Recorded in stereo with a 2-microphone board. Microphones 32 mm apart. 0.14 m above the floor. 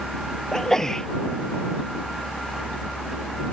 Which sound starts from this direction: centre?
A sneeze, at 0.5 s.